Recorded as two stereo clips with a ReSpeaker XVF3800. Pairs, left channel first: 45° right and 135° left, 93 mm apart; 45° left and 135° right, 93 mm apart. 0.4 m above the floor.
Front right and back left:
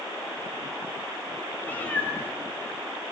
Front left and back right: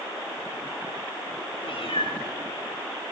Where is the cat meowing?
30° left, 8 m.